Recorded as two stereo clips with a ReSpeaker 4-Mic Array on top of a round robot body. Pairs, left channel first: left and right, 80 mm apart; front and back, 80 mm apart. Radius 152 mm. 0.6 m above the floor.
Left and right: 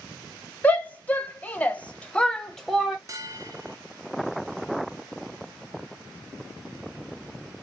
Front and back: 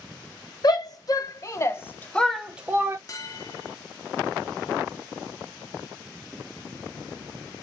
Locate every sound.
0.6 s a shout: 20° left, 1.8 m; by 3.0 s straight behind, 1.1 m
3.1 s a bell: 45° right, 0.9 m